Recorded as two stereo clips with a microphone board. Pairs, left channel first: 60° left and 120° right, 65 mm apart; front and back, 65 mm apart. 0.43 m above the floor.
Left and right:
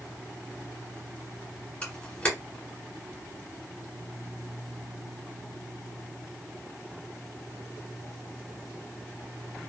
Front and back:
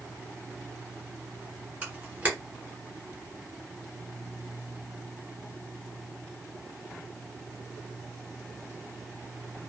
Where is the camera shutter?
130° left, 1.8 m.